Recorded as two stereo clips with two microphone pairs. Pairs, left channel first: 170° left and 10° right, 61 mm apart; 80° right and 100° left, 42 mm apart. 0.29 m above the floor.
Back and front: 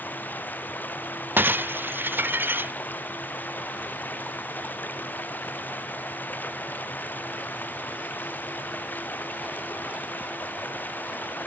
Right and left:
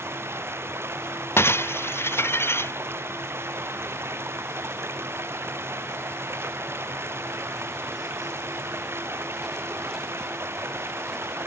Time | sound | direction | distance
0.0 | running water | 110° left | ?
1.4 | breaking glass | 65° right | ?